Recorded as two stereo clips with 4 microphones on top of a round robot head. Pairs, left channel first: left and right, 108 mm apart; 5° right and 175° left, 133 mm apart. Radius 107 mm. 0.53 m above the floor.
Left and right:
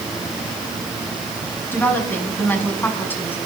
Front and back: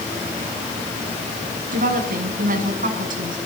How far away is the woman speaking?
About 6.5 m.